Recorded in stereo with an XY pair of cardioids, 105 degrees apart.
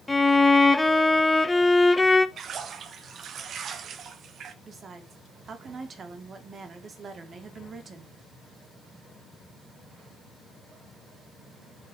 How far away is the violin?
About 0.9 m.